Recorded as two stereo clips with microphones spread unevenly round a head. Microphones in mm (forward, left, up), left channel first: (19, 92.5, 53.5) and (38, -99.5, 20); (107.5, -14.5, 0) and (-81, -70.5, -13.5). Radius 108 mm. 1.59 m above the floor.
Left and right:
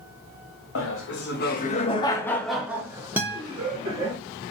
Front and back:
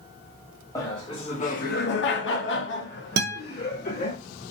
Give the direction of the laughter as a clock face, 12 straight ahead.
9 o'clock.